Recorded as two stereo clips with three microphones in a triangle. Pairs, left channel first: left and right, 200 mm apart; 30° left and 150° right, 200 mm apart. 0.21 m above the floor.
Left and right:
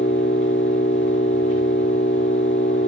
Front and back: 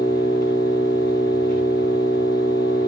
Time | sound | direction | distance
0.0 | an engine running | 70° left | 10 m